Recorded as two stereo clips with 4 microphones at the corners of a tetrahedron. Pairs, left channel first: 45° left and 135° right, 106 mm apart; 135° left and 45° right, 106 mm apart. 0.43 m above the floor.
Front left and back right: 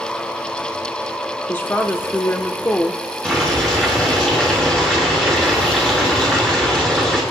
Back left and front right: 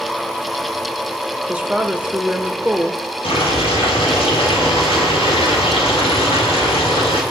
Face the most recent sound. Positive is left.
turn(degrees=125)